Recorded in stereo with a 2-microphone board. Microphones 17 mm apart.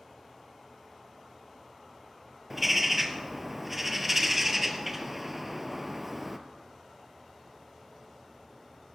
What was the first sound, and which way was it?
A bird, 15° right (ahead or behind).